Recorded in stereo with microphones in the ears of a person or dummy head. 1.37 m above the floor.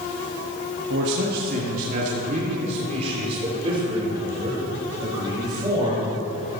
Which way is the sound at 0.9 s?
60° right (ahead or behind).